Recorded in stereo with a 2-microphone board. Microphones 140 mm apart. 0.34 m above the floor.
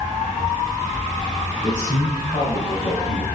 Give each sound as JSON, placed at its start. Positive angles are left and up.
{"t": 1.6, "sound": "a man speaking", "side_deg": 40, "distance_m": 1.6}